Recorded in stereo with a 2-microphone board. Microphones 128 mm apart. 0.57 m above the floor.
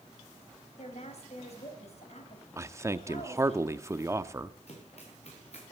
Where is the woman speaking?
60° left (ahead or behind), 4 m.